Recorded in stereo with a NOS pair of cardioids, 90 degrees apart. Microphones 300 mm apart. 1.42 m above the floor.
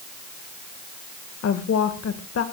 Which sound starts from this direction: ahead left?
A woman speaking, at 1.4 s.